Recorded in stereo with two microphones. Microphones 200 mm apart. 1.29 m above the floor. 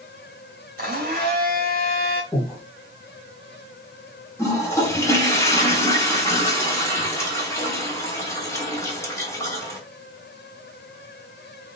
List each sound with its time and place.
0.8 s a blender: 45° right (ahead or behind), 1.3 m
2.3 s breathing: 15° left (ahead or behind), 1.3 m
4.4 s a toilet flushing: 15° left (ahead or behind), 1.1 m